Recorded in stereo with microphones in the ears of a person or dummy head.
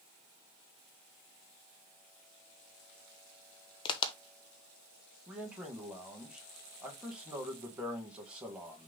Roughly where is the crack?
Left.